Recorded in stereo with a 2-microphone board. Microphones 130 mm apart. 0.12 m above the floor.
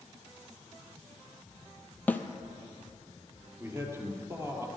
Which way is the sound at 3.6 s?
20° right (ahead or behind).